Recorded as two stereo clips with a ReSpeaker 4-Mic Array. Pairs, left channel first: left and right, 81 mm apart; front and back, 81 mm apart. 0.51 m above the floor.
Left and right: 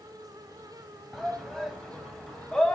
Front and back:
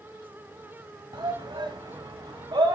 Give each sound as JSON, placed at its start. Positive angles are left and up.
{"t": 1.1, "sound": "a shout", "azimuth_deg": 180, "distance_m": 3.5}